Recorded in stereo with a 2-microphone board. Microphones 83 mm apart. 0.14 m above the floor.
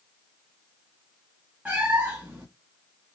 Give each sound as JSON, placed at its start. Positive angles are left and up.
{"t": 1.6, "sound": "a cat meowing", "side_deg": -20, "distance_m": 1.2}